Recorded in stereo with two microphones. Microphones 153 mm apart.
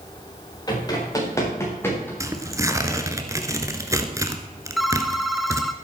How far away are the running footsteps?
About 7 m.